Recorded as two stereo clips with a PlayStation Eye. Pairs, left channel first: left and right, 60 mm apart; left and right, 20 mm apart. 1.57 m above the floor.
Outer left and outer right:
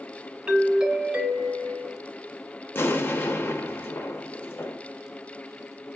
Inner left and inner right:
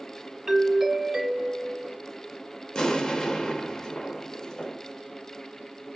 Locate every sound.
0.5 s a doorbell: 15° right (ahead or behind), 1.1 m
2.8 s an explosion: 35° left (ahead or behind), 0.7 m